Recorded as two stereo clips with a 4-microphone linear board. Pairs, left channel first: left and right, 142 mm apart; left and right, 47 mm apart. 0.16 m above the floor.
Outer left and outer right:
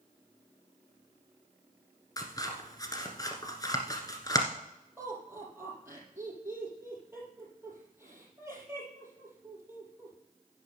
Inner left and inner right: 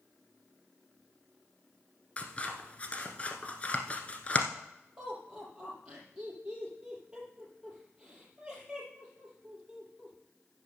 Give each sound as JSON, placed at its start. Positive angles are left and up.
{"t": 2.2, "sound": "scissors", "side_deg": 25, "distance_m": 1.3}
{"t": 5.0, "sound": "laughter", "side_deg": -20, "distance_m": 5.5}